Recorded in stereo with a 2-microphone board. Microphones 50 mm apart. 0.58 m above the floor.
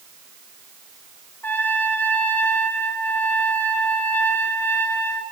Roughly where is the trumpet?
Left.